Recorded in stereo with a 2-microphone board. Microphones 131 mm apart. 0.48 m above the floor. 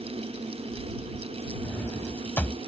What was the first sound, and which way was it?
A drawer, 15° left (ahead or behind).